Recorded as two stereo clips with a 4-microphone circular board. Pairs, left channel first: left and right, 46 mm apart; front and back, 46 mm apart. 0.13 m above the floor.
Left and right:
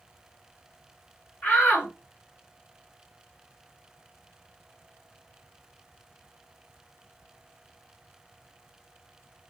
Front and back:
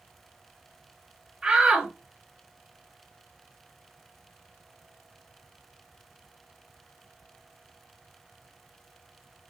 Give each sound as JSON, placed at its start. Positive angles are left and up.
{"t": 1.4, "sound": "a shout", "azimuth_deg": 110, "distance_m": 2.0}